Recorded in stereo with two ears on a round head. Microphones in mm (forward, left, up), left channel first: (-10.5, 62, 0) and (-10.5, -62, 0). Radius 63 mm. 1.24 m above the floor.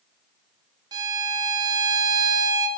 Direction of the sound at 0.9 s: 30° right (ahead or behind).